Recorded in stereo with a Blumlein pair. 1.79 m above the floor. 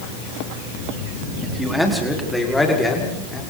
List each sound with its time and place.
1.4 s a man speaking: straight ahead, 4.5 m; by 3.4 s 10° left, 6.5 m